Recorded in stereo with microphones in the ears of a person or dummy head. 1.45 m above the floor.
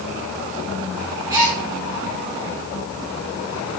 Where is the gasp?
15° right (ahead or behind), 4 m.